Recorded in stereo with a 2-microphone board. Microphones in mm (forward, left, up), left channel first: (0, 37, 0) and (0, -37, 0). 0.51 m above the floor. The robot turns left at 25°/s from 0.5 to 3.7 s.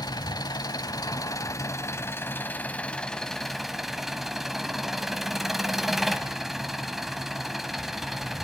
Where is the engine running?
75° left, 0.9 m; by 8.4 s 5° right, 0.9 m.